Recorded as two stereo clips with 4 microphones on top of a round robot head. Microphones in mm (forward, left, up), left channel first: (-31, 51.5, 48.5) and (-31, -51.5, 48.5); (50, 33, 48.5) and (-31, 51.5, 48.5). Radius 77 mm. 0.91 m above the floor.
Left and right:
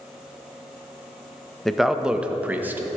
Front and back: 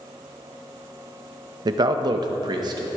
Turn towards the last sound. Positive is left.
turn(degrees=-160)